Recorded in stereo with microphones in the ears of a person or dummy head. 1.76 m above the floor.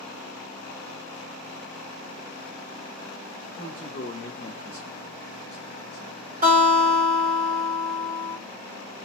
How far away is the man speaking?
About 1.2 m.